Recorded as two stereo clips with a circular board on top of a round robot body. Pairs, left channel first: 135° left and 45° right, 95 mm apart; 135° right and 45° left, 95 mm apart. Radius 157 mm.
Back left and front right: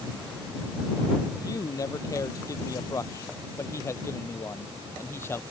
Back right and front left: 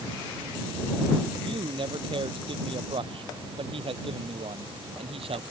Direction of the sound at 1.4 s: 80° left.